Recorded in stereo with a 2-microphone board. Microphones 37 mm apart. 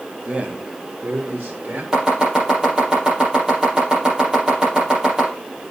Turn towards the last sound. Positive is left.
turn(degrees=-20)  # may be behind; listen again after turning